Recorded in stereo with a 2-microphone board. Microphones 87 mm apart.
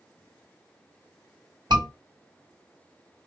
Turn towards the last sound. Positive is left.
turn(degrees=-60)  # may be behind; listen again after turning